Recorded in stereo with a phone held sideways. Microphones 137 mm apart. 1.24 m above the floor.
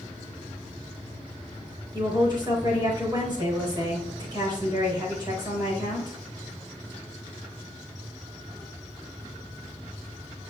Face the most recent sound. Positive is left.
turn(degrees=-35)  # may be behind; listen again after turning